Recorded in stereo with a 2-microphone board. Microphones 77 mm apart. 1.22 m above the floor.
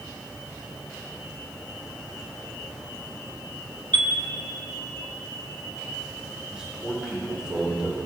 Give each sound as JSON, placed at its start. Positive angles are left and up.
{"t": 3.9, "sound": "a chime", "side_deg": -70, "distance_m": 1.1}
{"t": 6.5, "sound": "a man speaking", "side_deg": -10, "distance_m": 4.5}